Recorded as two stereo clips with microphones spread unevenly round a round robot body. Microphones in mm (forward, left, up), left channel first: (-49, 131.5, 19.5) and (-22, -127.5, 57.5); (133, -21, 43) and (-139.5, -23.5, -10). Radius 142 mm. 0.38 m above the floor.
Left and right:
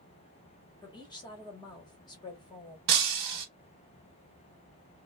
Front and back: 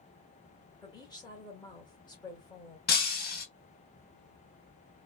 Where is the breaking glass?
60° right, 0.7 m.